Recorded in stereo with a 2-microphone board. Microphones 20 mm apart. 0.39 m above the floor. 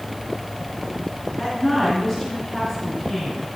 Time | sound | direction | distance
1.4 | a woman speaking | 20° left (ahead or behind) | 4.5 m